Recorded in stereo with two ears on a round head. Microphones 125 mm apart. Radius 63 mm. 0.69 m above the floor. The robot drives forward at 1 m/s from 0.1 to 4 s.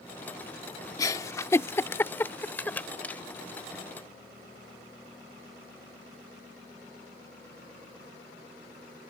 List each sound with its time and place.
1.0 s a giggle: 25° left (ahead or behind); by 3.2 s 10° left (ahead or behind)